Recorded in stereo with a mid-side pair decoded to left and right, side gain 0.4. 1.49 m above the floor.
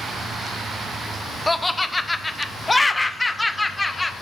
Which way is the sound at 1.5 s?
20° left.